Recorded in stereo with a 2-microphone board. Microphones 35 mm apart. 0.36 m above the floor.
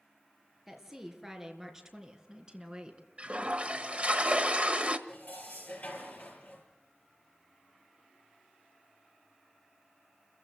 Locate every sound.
0.7 s a woman speaking: 10° right (ahead or behind), 5 m; by 3.1 s 25° right (ahead or behind), 3 m
3.2 s a toilet flushing: 35° right (ahead or behind), 1.3 m
5.1 s dishes clattering: 55° left (ahead or behind), 6 m